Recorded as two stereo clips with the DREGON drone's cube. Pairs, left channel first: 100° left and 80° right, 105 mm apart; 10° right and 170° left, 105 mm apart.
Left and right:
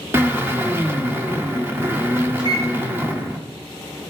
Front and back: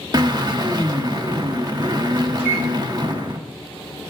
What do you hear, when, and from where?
0.1 s a drill: 145° right, 1.4 m
2.4 s a microwave: 120° right, 3.5 m